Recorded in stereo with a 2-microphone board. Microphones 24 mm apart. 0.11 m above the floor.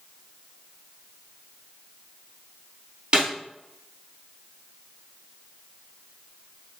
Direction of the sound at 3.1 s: 45° right (ahead or behind).